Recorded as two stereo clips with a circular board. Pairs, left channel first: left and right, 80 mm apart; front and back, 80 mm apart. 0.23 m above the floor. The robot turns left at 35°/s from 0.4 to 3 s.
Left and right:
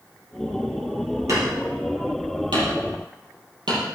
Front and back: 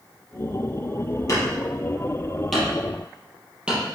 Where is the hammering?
45° right, 5 m; by 3.8 s 105° right, 5 m.